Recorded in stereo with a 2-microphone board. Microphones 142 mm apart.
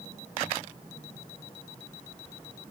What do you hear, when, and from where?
Only background noise.